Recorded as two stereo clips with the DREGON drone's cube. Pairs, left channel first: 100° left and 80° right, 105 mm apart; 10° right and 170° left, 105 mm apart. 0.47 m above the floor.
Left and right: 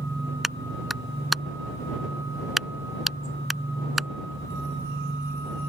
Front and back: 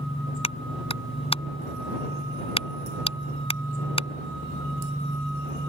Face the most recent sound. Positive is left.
turn(degrees=10)